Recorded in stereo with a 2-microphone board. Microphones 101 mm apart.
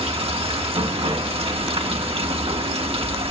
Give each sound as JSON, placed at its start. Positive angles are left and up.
{"t": 0.0, "sound": "running water", "side_deg": -75, "distance_m": 2.5}